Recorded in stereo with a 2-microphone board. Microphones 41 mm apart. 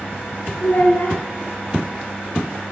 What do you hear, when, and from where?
0.6 s a child speaking: 55° left (ahead or behind), 1.2 m